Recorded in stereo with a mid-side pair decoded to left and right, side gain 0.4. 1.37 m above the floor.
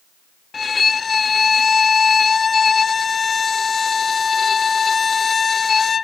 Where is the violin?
45° left, 0.6 m.